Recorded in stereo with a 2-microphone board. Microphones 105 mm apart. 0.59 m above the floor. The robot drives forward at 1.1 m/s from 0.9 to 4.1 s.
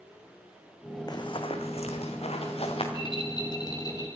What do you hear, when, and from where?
1.1 s running footsteps: 40° left (ahead or behind), 1.9 m; by 2.8 s 60° left (ahead or behind), 3.5 m
2.9 s a rattle: 50° left (ahead or behind), 2.5 m; by 4.1 s 35° left (ahead or behind), 3.5 m